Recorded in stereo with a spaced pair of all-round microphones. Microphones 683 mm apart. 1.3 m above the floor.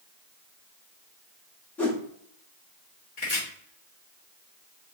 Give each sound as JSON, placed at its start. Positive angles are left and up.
{"t": 1.8, "sound": "a whoosh", "side_deg": 0, "distance_m": 0.9}
{"t": 3.2, "sound": "chopping", "side_deg": 70, "distance_m": 1.4}